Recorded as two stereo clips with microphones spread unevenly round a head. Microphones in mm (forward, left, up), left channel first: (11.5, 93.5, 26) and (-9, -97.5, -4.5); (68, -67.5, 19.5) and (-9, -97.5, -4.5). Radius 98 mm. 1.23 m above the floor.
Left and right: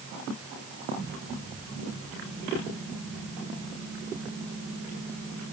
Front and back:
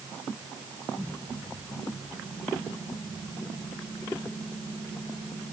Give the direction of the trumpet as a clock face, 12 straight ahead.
I don't hear a trumpet.